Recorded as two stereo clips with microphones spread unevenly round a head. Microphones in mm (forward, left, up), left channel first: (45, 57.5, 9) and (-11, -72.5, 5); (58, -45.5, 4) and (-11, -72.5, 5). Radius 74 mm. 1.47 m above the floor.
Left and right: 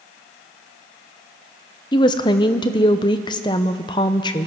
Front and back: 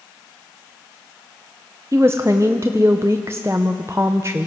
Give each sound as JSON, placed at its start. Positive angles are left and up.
{"t": 1.9, "sound": "a woman speaking", "azimuth_deg": 130, "distance_m": 0.5}